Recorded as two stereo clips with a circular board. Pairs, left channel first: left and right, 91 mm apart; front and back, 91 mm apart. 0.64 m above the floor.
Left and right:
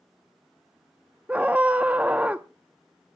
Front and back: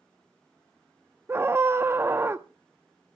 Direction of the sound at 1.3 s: 150° right.